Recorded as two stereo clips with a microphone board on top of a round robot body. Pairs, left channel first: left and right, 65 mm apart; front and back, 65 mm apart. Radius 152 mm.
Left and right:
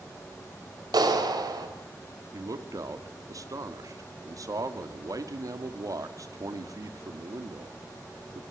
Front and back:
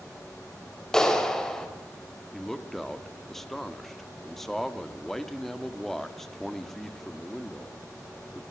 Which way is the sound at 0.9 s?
80° right.